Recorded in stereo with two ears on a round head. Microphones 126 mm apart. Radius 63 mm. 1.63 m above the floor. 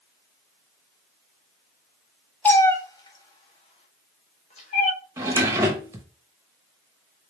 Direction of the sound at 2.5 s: 10° left (ahead or behind).